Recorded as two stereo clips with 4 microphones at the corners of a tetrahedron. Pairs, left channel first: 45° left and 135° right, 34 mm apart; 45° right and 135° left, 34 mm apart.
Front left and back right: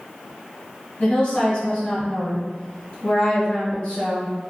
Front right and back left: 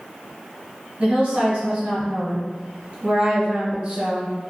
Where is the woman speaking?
90° left, 1.3 m.